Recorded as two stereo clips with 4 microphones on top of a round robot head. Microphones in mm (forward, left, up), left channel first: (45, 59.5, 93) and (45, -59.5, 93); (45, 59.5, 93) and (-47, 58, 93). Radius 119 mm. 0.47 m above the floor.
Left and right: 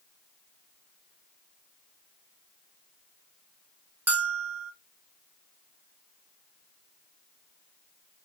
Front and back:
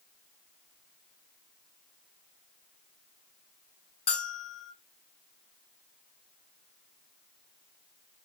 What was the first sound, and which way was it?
A bell, 15° right.